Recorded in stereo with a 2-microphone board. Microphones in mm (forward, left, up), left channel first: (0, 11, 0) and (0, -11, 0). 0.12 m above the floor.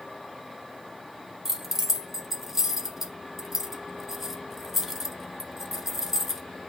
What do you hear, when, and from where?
1.4 s keys jangling: 10° right (ahead or behind), 1.2 m